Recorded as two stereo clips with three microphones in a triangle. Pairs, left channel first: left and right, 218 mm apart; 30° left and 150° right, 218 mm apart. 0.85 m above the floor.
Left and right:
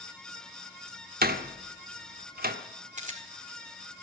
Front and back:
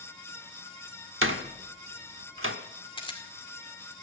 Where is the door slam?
135° right, 1.3 m.